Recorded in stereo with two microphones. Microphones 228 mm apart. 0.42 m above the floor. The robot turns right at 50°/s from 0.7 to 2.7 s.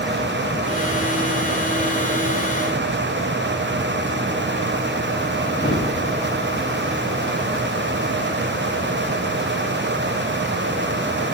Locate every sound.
5.6 s a thud: 45° left (ahead or behind), 3.5 m